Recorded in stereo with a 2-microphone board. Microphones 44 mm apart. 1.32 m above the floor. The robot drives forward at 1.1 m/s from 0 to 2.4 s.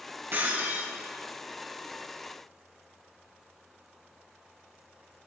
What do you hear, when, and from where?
0.3 s breaking glass: 50° right (ahead or behind), 7.5 m; by 0.9 s 55° right (ahead or behind), 7 m